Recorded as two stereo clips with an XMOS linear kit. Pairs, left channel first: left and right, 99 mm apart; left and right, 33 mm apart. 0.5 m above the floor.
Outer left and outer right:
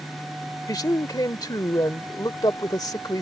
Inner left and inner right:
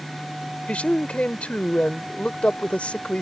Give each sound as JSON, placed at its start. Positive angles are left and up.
{"t": 0.7, "sound": "a man speaking", "side_deg": 40}